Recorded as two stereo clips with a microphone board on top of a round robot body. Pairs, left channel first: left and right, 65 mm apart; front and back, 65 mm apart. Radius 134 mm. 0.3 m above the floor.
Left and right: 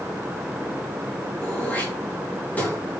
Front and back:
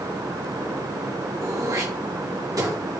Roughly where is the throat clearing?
Behind left.